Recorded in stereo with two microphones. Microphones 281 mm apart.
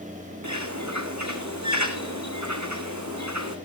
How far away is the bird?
About 2 m.